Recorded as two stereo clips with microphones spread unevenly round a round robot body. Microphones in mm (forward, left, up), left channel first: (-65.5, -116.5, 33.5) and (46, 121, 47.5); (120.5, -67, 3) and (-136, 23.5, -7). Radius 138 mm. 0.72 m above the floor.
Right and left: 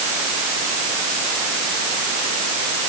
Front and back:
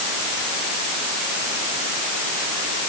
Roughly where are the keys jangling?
I don't hear keys jangling.